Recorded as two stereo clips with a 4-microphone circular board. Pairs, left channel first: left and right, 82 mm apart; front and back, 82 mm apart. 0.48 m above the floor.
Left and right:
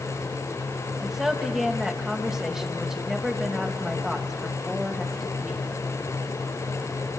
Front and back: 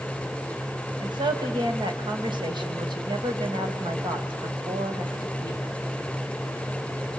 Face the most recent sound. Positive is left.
turn(degrees=-175)